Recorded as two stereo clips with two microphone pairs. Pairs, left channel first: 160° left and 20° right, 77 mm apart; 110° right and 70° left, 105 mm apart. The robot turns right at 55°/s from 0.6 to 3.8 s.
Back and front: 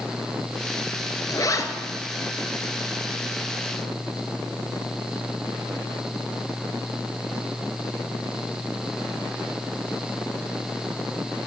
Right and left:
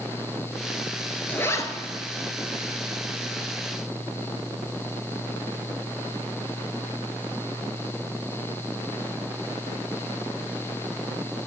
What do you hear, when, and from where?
1.3 s a zipper: straight behind, 0.9 m; by 1.7 s 160° right, 0.9 m